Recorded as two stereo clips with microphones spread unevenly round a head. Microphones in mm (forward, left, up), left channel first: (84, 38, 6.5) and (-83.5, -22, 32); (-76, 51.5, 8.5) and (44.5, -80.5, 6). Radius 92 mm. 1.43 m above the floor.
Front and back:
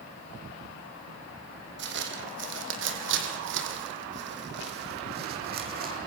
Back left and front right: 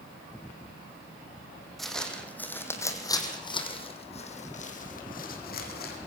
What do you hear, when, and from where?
1.8 s footsteps: 140° right, 4 m; by 6.0 s 165° left, 4.5 m